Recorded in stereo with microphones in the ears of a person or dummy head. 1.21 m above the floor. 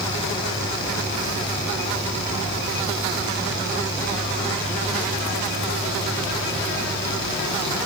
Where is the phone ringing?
No phone ringing in this recording.